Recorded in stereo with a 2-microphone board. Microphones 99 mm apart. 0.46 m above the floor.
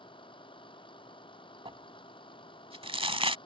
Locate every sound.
0.0 s a vehicle: 60° left (ahead or behind)
1.6 s crumpling: 75° right (ahead or behind)